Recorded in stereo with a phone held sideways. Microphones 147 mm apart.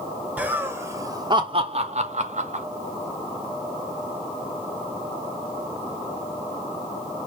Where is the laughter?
5° right (ahead or behind), 1.0 m; by 2.6 s 55° right (ahead or behind), 1.0 m.